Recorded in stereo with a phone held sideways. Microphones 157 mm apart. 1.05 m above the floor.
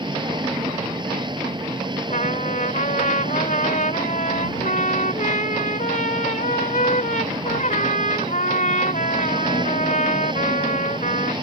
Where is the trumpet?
55° left (ahead or behind).